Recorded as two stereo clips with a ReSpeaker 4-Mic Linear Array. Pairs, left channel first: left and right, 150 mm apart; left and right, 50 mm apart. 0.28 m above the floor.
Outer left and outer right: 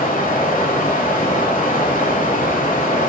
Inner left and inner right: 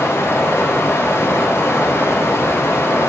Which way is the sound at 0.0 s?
65° left (ahead or behind).